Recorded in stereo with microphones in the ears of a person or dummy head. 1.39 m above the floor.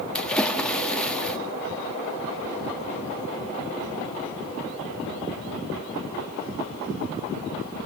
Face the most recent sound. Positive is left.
turn(degrees=5)  # may be behind; listen again after turning